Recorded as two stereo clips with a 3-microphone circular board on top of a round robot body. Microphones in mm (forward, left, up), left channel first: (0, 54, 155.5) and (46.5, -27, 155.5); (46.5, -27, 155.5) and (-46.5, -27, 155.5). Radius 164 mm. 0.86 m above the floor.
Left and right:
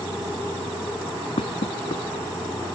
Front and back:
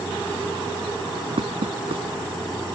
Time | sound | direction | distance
1.4 | knocking | 150° left | ?